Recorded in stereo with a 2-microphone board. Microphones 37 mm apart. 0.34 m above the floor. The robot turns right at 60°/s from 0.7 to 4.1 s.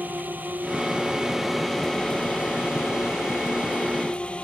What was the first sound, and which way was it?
A drone, 50° right (ahead or behind).